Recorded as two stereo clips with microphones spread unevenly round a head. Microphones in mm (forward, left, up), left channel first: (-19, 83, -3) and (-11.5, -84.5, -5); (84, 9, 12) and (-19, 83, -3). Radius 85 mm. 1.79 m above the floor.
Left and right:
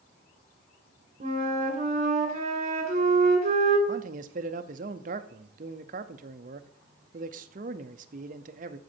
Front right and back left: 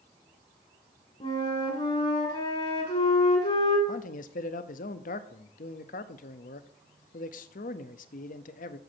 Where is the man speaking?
45° right, 0.6 m.